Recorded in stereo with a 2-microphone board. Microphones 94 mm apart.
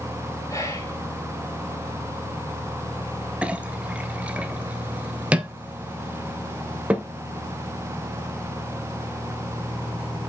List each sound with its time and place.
0.5 s whispering: 35° left (ahead or behind), 4 m
3.4 s a clink: 15° right (ahead or behind), 0.8 m